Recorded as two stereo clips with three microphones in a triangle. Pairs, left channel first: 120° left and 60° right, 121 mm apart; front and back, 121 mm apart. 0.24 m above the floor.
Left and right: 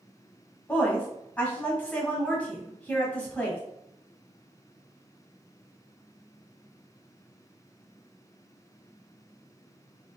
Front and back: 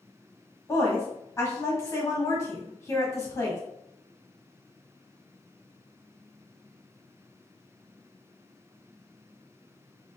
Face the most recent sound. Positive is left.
turn(degrees=50)